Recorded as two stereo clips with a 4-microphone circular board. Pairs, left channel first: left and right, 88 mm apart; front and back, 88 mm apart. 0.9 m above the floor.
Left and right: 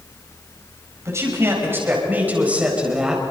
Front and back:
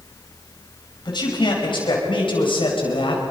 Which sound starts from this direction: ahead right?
A man speaking, at 1.1 s.